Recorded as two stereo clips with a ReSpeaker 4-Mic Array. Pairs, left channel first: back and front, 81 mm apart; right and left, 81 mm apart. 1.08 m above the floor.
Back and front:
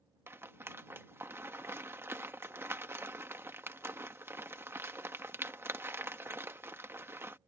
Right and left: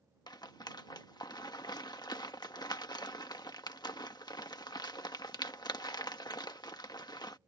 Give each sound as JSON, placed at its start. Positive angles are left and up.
{"t": 0.3, "sound": "a rattle", "azimuth_deg": -60}